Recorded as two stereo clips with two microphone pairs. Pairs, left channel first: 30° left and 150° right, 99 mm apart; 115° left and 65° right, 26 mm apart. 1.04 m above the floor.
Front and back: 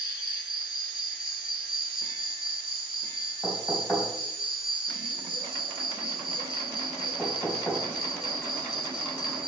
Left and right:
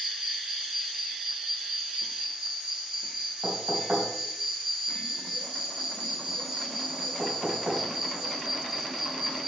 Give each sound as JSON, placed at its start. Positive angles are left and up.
{"t": 0.0, "sound": "an insect", "azimuth_deg": -130, "distance_m": 3.5}
{"t": 3.4, "sound": "knocking", "azimuth_deg": -55, "distance_m": 4.0}